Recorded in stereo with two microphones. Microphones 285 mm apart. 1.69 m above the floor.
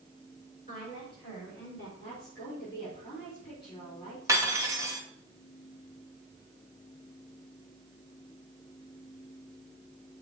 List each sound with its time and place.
0.7 s a woman speaking: 30° left (ahead or behind), 4.5 m; by 1.9 s 45° left (ahead or behind), 4 m
2.0 s a woman speaking: 30° left (ahead or behind), 4 m
4.3 s cutlery clinking: 10° right (ahead or behind), 1.2 m